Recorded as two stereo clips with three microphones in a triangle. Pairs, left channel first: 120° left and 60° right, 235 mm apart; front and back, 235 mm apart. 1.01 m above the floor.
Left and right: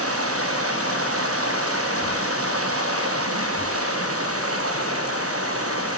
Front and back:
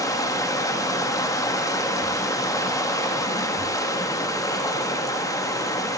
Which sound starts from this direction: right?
Running water, at 0.0 s.